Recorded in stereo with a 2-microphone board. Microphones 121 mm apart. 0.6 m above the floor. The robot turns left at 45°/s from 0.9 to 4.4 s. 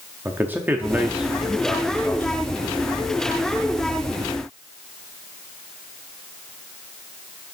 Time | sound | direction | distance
0.2 | a man speaking | 150° right | 0.7 m